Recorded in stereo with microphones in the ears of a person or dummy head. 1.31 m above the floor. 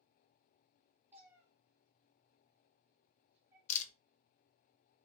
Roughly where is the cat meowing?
Centre.